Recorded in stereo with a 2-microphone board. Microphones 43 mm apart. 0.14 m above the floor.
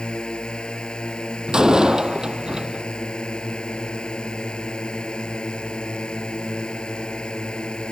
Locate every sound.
0.0 s a drone: 20° left (ahead or behind)
1.5 s a door slam: 20° right (ahead or behind)